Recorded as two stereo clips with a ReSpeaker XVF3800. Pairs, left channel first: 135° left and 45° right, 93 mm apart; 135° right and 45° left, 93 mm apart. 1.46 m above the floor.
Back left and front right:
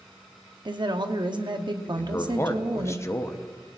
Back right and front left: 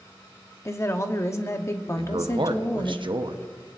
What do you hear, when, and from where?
0.7 s a woman speaking: 75° right, 0.8 m
2.0 s a man speaking: 75° left, 0.8 m